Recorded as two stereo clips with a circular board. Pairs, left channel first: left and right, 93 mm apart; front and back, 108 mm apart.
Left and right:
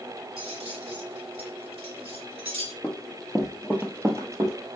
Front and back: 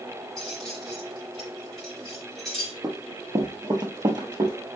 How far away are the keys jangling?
About 1.7 m.